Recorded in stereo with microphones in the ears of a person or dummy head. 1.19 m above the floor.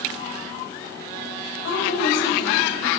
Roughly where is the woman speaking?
Left.